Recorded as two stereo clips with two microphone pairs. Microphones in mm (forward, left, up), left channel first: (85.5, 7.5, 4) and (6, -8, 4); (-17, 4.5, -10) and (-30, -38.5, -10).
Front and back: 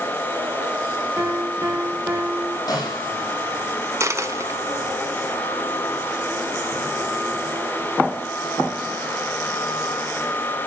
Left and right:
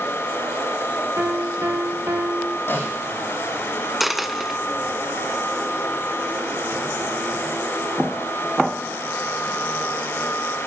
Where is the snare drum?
40° left, 7 m.